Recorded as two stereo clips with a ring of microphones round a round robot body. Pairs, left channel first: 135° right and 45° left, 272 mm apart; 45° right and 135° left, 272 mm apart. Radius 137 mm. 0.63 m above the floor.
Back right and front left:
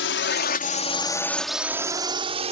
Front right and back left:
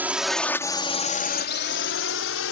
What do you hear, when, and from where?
0.0 s a drone: 145° right; by 2.5 s 20° right